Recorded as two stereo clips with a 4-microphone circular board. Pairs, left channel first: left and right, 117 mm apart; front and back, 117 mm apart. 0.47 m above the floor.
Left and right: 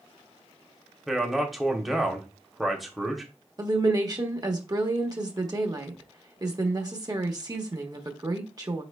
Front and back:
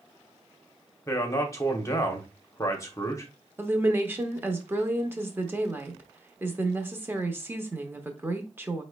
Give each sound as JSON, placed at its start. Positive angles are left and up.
{"t": 1.1, "sound": "a man speaking", "azimuth_deg": 0, "distance_m": 0.9}
{"t": 3.6, "sound": "a woman speaking", "azimuth_deg": -120, "distance_m": 0.9}